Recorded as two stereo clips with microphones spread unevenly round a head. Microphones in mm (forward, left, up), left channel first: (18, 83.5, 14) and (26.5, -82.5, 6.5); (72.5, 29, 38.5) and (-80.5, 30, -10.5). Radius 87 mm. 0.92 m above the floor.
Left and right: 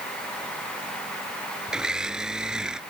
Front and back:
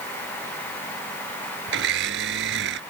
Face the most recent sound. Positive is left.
turn(degrees=-175)